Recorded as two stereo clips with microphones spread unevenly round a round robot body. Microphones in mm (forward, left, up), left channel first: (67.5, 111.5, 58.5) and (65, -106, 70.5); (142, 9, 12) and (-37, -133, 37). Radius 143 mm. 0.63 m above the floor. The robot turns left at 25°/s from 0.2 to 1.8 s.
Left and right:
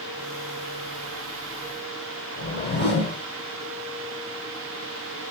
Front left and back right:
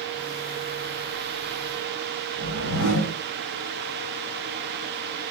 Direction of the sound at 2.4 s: 55° left.